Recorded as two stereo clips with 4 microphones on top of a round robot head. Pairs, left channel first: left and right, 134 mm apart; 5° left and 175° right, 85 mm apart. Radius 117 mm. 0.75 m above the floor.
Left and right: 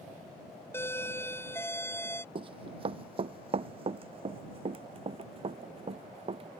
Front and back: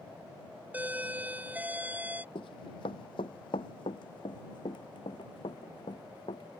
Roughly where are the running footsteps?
Ahead right.